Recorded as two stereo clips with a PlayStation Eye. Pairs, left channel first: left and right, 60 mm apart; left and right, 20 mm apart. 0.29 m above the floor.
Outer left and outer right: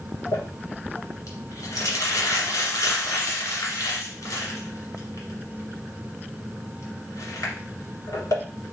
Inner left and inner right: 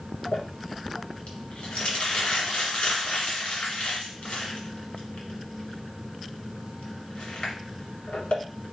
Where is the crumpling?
70° left (ahead or behind), 2 m.